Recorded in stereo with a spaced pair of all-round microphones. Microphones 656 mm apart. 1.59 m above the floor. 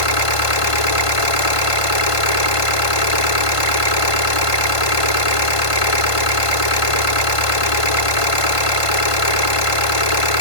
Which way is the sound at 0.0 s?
55° left (ahead or behind).